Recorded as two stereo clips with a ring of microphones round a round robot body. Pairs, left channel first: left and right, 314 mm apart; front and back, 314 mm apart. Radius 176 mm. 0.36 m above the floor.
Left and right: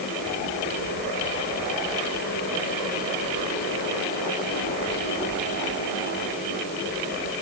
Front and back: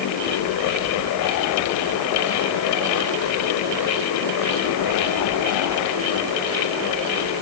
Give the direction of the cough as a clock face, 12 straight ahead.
No cough in this recording.